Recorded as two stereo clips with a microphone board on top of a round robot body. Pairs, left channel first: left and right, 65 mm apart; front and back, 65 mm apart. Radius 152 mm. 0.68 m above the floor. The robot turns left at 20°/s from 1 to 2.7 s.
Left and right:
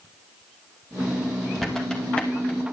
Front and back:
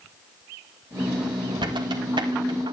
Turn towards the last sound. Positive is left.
turn(degrees=155)